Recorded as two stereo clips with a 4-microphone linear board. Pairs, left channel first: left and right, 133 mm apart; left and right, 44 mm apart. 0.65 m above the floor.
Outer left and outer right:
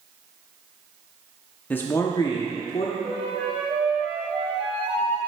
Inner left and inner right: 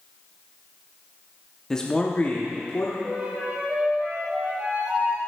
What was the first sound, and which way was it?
A man speaking, 10° left (ahead or behind).